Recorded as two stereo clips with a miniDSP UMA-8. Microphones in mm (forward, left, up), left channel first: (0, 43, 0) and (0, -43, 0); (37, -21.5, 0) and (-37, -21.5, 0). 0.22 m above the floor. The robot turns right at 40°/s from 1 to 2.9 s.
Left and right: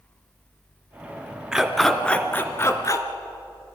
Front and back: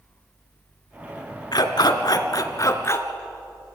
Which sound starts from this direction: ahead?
A dog barking, at 1.5 s.